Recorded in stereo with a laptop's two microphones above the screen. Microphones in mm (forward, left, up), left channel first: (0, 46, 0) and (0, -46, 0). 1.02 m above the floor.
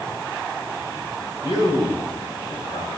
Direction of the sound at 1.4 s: 45° left (ahead or behind).